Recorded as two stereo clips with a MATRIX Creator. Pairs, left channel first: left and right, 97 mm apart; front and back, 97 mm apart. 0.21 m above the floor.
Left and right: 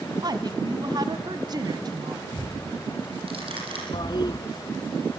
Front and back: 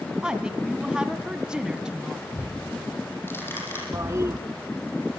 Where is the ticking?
65° right, 9 m.